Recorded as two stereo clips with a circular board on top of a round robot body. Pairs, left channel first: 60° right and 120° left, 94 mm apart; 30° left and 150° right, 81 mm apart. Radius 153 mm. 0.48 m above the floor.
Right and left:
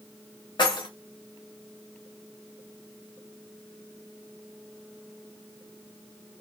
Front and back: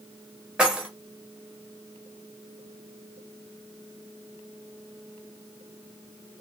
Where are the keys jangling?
75° right, 1.0 m.